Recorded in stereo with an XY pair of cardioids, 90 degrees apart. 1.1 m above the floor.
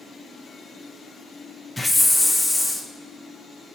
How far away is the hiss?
About 0.6 m.